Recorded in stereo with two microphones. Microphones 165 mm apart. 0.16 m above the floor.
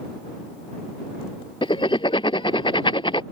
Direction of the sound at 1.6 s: 30° left (ahead or behind).